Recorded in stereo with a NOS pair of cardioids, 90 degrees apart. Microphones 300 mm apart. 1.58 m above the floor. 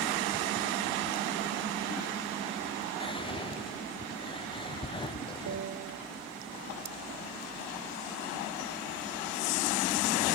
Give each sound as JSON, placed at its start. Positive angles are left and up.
{"t": 3.0, "sound": "whispering", "azimuth_deg": 15, "distance_m": 0.7}
{"t": 5.5, "sound": "a piano", "azimuth_deg": -60, "distance_m": 1.4}